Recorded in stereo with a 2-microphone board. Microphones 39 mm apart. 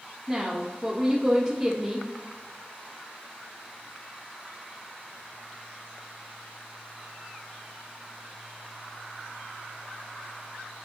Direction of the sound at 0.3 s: 30° right (ahead or behind).